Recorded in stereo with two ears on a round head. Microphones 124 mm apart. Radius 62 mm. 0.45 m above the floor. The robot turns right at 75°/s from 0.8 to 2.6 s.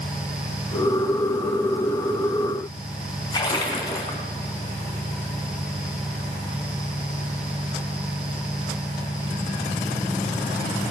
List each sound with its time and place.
3.3 s a splash: 30° left (ahead or behind), 3 m